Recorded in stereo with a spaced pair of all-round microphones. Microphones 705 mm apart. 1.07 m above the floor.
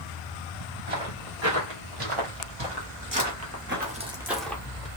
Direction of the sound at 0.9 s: 50° right (ahead or behind).